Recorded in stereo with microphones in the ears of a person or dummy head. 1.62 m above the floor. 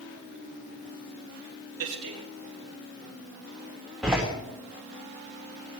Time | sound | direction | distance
1.8 | a man speaking | 65° right (ahead or behind) | 3 m
4.0 | a door slam | centre (ahead or behind) | 3.5 m